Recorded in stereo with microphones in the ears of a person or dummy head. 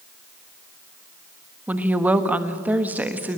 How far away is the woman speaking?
About 1.4 m.